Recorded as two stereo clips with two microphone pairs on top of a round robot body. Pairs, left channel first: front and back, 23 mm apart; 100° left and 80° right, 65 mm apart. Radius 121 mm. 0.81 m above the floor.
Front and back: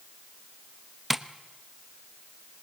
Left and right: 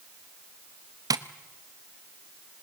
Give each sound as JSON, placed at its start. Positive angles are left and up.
{"t": 1.1, "sound": "tapping", "azimuth_deg": -90, "distance_m": 1.0}